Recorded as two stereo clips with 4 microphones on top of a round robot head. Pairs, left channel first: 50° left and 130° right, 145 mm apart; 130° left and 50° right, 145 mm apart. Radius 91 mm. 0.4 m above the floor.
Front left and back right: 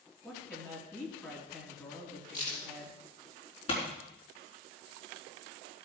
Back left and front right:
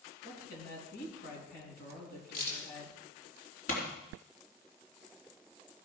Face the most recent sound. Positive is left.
turn(degrees=100)